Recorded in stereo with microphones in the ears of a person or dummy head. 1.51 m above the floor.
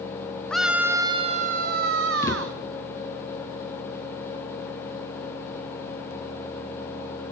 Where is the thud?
20° left (ahead or behind), 2.5 m.